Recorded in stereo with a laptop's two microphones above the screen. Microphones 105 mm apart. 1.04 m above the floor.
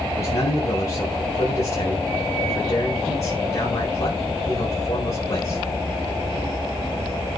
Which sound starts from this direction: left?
A man speaking, at 0.1 s.